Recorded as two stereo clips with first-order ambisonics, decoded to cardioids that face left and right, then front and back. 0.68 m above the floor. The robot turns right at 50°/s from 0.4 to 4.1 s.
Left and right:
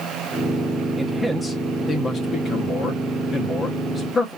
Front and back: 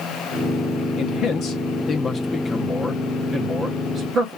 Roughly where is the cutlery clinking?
No cutlery clinking in this recording.